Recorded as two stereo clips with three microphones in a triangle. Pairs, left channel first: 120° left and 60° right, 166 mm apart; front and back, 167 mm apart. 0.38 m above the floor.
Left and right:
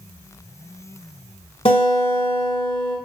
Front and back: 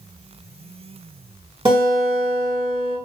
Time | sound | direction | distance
1.6 | a guitar | 140° left | 1.6 m